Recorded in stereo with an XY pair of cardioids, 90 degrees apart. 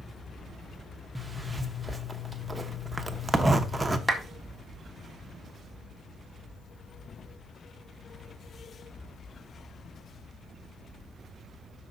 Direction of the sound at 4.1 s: 10° right.